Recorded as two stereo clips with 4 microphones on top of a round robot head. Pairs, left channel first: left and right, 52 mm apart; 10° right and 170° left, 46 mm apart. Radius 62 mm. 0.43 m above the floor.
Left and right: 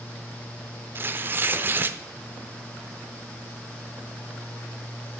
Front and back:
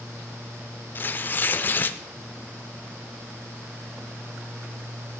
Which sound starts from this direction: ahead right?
Tearing paper, at 0.9 s.